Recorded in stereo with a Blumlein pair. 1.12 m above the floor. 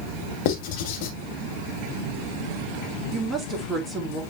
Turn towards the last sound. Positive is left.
turn(degrees=-10)